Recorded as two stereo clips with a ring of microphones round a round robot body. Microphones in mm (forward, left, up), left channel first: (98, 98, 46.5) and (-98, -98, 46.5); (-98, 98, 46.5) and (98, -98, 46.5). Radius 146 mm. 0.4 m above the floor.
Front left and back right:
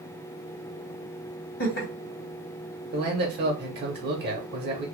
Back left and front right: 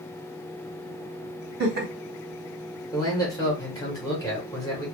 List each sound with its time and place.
1.6 s laughter: 5° left, 1.6 m
2.9 s a man speaking: 155° right, 1.0 m